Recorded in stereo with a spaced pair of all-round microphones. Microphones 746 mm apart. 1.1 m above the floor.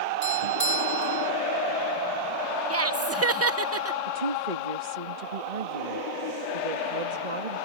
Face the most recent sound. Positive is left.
turn(degrees=-75)  # may be behind; listen again after turning